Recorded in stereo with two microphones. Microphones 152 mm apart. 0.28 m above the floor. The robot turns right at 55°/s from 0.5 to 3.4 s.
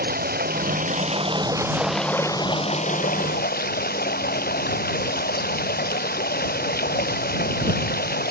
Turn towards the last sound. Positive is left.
turn(degrees=80)